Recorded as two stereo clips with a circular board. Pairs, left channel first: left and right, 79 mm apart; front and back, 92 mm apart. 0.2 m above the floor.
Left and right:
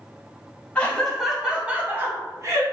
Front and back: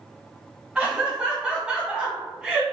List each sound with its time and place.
0.8 s laughter: 120° left, 1.0 m; by 2.6 s 105° right, 1.4 m